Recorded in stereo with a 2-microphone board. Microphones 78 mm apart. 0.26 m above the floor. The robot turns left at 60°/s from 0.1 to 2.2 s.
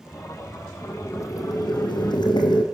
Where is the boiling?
160° left, 3.5 m; by 2.6 s 80° left, 3.5 m.